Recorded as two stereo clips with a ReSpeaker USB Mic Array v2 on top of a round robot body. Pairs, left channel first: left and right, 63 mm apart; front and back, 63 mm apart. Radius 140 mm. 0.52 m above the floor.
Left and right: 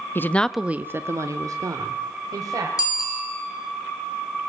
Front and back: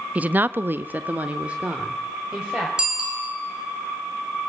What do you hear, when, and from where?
0.1 s a woman speaking: 120° left, 0.9 m; by 2.7 s 105° right, 3 m
2.8 s a bicycle bell: 105° left, 6.5 m